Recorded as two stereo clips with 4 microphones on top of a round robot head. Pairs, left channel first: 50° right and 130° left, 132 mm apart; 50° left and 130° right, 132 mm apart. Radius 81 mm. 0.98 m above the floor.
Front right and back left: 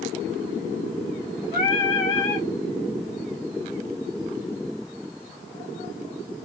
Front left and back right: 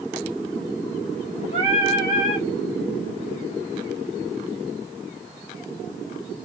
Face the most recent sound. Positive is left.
turn(degrees=0)